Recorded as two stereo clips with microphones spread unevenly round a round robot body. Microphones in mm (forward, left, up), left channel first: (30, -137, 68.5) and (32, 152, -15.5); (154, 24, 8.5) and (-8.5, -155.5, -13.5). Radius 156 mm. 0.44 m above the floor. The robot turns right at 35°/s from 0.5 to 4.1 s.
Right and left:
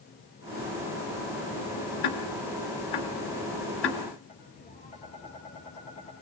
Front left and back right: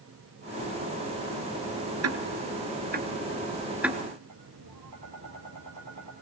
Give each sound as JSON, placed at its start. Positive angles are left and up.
{"t": 2.0, "sound": "ticking", "azimuth_deg": -110, "distance_m": 2.0}
{"t": 4.3, "sound": "tapping", "azimuth_deg": -160, "distance_m": 4.0}